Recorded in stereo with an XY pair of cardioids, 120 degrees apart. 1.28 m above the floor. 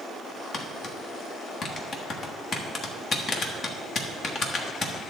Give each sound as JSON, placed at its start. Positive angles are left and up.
{"t": 0.5, "sound": "tapping", "azimuth_deg": 45, "distance_m": 1.3}